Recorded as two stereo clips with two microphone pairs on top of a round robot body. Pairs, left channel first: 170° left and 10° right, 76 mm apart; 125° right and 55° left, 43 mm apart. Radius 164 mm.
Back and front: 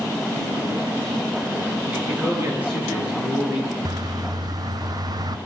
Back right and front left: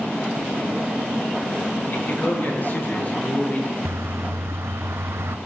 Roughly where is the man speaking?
Right.